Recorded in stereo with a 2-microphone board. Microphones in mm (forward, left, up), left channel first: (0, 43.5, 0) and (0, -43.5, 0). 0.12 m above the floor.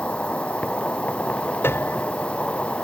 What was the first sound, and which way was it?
An insect, 15° left (ahead or behind).